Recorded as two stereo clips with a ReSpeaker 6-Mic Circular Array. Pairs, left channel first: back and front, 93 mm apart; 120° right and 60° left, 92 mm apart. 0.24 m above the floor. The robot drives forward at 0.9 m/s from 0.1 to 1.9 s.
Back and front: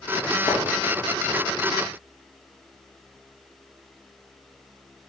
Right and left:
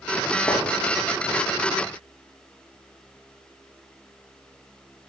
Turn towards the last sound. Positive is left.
turn(degrees=175)